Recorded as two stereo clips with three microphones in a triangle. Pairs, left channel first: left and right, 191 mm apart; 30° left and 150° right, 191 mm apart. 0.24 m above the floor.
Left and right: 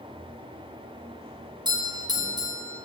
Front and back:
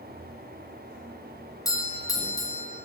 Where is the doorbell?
35° right, 3 m.